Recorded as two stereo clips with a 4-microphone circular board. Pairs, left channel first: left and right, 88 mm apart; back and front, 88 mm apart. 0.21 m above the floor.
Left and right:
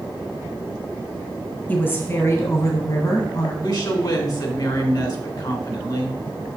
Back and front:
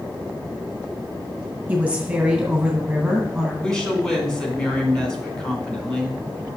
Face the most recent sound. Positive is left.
turn(degrees=100)